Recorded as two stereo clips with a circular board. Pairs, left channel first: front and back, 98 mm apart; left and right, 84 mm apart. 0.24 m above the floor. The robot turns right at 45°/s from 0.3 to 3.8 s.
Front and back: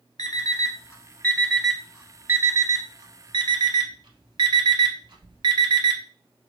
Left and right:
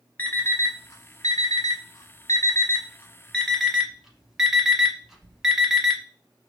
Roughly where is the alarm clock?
Ahead left.